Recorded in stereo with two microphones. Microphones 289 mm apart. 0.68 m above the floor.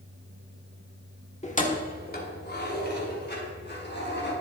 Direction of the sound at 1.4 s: 25° left (ahead or behind).